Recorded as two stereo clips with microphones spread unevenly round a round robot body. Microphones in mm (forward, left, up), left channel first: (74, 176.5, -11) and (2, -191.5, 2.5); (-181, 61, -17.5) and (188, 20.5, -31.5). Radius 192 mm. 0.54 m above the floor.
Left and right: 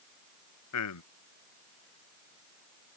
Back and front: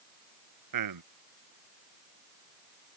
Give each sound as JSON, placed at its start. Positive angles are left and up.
{"t": 0.7, "sound": "a man speaking", "azimuth_deg": 30}